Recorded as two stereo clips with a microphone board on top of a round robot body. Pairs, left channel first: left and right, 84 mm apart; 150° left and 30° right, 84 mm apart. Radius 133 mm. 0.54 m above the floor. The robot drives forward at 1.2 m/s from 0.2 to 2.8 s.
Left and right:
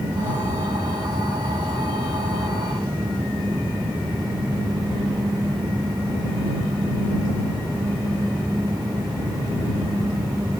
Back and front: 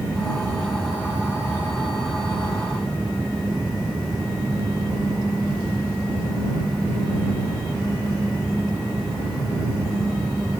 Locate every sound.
Only background noise.